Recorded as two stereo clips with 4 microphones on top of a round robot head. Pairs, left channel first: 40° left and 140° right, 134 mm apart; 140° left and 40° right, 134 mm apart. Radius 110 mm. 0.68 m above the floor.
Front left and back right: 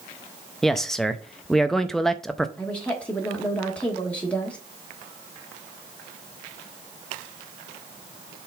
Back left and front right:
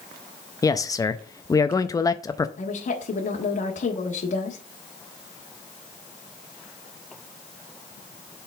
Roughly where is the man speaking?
Behind left.